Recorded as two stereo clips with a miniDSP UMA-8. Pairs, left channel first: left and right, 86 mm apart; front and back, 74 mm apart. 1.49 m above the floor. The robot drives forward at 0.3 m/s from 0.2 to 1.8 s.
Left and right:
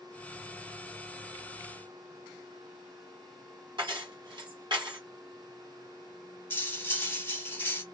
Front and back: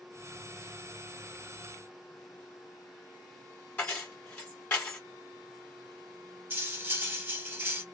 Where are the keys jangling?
70° right, 1.6 m.